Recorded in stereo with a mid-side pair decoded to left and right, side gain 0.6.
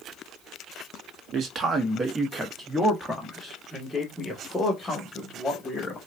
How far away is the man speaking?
About 1.3 m.